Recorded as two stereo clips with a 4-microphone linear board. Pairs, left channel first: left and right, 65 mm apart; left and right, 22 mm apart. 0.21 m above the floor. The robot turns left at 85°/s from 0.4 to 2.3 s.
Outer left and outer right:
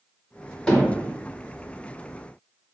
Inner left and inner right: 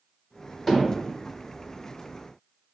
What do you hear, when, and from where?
0.7 s hammering: 5° left (ahead or behind), 1.9 m; by 1.1 s 25° right (ahead or behind), 1.9 m